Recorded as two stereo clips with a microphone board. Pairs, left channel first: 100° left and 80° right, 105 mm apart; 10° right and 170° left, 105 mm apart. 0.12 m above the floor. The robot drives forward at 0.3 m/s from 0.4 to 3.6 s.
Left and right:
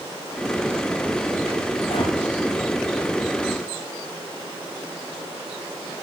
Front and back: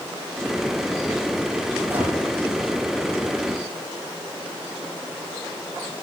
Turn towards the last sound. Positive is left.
turn(degrees=100)